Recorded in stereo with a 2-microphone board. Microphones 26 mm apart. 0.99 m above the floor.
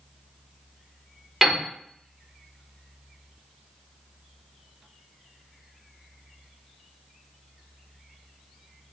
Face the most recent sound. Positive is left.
turn(degrees=-10)  # may be behind; listen again after turning